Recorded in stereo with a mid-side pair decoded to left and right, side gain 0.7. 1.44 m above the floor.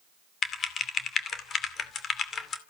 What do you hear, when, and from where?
0.4 s typing on a keyboard: 35° left, 2.5 m